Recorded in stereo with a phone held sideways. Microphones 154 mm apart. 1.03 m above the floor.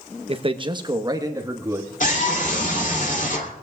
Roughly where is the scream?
Left.